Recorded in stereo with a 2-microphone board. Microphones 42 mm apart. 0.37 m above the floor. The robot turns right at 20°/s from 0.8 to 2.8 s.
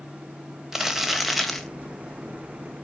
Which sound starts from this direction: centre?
Crumpling, at 0.7 s.